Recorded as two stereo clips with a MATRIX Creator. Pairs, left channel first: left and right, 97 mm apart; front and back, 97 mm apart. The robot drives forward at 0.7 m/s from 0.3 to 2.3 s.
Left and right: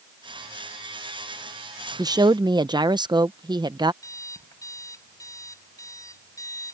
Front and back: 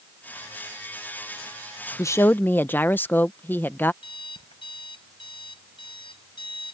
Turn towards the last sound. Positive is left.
turn(degrees=30)